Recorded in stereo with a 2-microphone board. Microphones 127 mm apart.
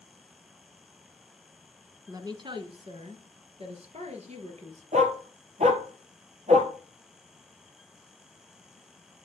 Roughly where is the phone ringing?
I don't hear a phone ringing.